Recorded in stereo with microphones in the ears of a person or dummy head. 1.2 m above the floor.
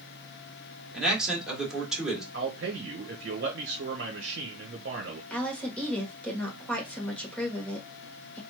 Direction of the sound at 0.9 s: Centre (ahead or behind).